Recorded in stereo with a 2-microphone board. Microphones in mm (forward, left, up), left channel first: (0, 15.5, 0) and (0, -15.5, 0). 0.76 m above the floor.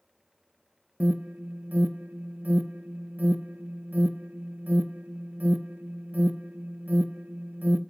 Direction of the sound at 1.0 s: 60° right (ahead or behind).